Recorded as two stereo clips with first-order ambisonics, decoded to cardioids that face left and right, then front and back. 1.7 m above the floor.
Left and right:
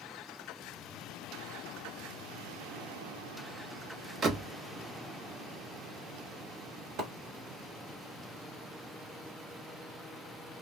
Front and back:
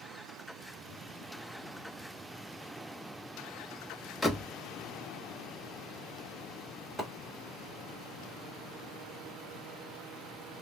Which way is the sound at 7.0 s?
100° right.